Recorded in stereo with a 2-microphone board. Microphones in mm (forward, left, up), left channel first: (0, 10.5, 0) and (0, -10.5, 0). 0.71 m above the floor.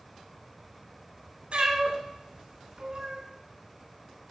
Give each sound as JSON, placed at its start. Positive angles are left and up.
{"t": 1.5, "sound": "a cat meowing", "side_deg": -60, "distance_m": 2.0}